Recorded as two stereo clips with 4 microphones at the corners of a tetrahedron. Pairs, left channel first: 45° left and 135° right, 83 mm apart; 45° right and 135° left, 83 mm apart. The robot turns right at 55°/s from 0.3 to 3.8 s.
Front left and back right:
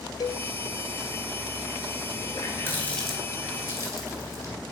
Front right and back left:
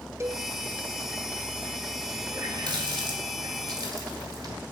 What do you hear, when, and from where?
0.2 s a cowbell: 80° left, 0.7 m; by 0.5 s 90° left, 0.7 m
2.3 s a running tap: 90° left, 2.5 m; by 4.5 s 170° left, 2.5 m